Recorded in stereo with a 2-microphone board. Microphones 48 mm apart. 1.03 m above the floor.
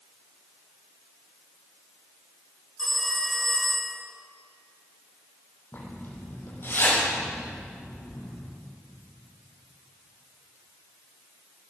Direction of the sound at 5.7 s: 50° left (ahead or behind).